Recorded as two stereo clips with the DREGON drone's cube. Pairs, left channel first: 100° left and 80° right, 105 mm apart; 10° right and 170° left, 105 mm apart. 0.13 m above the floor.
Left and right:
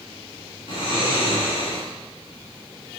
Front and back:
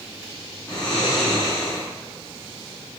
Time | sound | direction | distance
0.7 | snoring | 70° left | 1.6 m